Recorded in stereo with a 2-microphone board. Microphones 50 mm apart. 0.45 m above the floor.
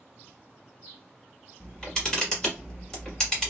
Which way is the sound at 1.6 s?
15° left (ahead or behind).